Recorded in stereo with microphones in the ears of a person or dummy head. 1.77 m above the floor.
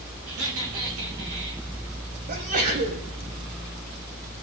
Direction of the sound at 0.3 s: 75° right (ahead or behind).